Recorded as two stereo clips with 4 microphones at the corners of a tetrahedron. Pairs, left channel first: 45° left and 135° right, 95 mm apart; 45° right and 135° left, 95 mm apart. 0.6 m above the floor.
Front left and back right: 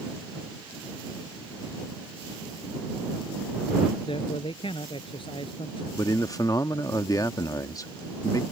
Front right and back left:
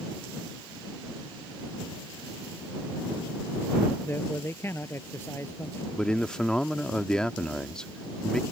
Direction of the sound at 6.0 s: 30° left.